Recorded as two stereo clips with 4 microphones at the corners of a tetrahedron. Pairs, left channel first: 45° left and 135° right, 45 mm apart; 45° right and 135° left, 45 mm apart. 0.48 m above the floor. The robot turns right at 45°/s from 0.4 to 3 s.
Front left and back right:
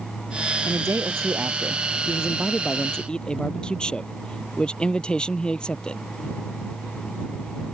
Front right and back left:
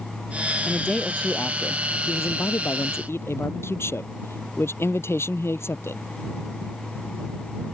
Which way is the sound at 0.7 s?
130° right.